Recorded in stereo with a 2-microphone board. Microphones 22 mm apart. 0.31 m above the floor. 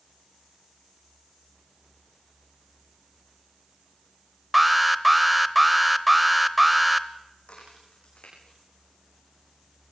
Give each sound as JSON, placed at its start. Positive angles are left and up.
{"t": 4.5, "sound": "an alarm", "side_deg": -10, "distance_m": 0.7}
{"t": 7.5, "sound": "a crack", "side_deg": 65, "distance_m": 7.0}